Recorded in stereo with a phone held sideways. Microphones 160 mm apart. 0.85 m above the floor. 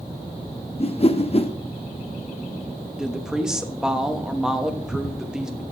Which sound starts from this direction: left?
A whoosh, at 0.8 s.